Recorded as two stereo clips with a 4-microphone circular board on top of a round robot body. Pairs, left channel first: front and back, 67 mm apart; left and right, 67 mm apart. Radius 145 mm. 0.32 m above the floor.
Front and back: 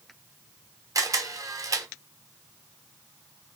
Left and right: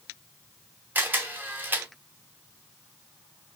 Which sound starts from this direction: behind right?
A camera shutter, at 0.9 s.